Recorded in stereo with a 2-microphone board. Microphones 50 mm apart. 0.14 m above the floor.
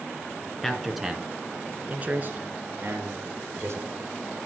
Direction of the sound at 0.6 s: 10° left (ahead or behind).